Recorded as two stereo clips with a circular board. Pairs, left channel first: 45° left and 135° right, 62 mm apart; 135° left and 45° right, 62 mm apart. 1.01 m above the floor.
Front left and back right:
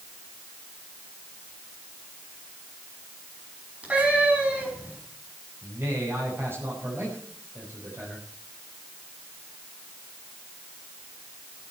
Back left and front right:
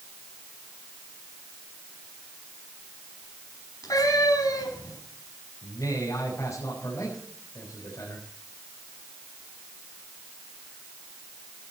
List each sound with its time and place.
3.8 s a cat meowing: 155° left, 5 m
5.6 s a man speaking: 170° left, 5 m